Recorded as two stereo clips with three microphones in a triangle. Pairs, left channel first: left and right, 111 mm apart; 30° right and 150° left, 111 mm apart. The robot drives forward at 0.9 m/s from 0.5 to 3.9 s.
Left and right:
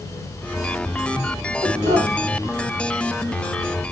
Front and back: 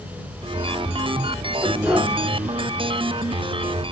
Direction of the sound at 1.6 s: 115° right.